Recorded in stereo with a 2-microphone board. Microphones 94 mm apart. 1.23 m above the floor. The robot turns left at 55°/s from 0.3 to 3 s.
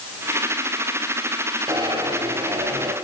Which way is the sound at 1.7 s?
45° right.